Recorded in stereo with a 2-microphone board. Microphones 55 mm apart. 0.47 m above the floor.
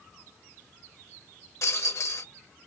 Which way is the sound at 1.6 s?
60° left (ahead or behind).